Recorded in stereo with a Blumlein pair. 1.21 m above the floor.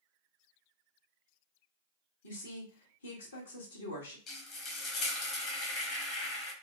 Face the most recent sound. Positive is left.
turn(degrees=30)